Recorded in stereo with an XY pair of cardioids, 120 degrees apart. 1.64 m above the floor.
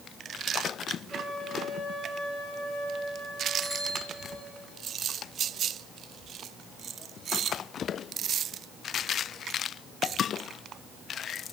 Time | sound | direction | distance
1.1 | a flute | 5° left | 4.5 m
3.6 | a bicycle bell | 5° left | 8.5 m